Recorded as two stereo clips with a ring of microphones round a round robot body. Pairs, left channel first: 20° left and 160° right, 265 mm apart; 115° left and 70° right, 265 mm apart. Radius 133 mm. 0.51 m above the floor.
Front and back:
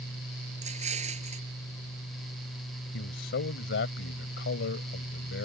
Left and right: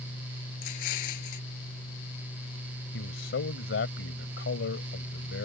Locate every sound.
0.6 s an explosion: 135° left
2.9 s a man speaking: 65° left